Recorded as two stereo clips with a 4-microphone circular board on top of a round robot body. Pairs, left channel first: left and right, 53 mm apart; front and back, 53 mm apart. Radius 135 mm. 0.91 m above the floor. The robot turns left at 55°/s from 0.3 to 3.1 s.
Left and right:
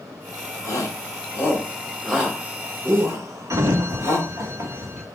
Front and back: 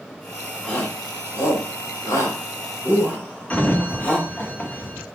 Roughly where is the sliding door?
Ahead right.